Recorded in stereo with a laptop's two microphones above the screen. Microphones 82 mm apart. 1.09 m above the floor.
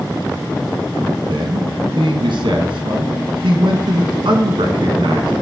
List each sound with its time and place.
1.3 s a man speaking: 70° right (ahead or behind), 1.0 m